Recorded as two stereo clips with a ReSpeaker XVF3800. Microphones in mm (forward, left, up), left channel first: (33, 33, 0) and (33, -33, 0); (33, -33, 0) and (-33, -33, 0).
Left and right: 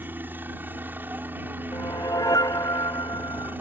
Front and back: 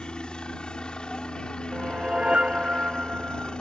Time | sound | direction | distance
0.0 | a helicopter | 65° right | ?
1.7 | a whoosh | 105° left | ?